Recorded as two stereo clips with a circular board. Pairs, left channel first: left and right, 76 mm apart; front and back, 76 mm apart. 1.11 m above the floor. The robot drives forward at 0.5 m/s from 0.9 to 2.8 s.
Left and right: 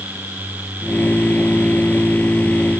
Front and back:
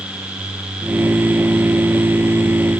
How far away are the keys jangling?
No keys jangling in this recording.